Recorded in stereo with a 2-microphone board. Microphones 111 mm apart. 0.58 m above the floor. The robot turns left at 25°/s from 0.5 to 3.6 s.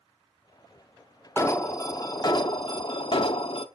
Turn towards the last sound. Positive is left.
turn(degrees=95)